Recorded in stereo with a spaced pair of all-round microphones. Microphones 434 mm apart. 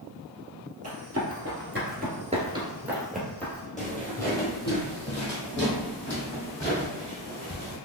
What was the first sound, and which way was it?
Running footsteps, 35° right (ahead or behind).